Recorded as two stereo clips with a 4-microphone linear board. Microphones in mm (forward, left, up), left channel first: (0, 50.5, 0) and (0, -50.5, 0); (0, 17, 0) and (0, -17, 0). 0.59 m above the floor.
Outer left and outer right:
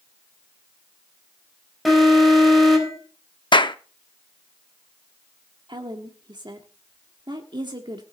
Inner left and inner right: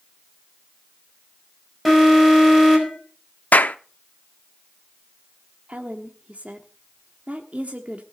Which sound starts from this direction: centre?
An alarm, at 1.9 s.